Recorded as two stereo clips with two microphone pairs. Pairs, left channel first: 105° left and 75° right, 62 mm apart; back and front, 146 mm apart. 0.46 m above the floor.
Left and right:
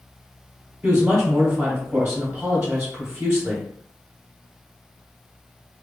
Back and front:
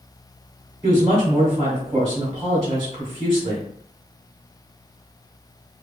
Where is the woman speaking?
50° right, 1.2 m.